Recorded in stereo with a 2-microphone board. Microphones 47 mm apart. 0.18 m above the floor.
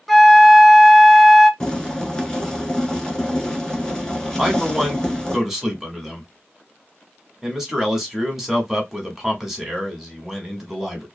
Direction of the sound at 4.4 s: 10° right (ahead or behind).